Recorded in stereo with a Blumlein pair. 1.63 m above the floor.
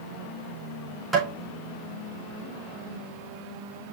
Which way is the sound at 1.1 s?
5° right.